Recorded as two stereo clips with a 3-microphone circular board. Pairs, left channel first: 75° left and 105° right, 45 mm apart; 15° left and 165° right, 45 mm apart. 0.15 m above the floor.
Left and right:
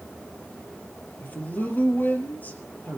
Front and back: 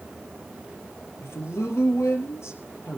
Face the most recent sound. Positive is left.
turn(degrees=25)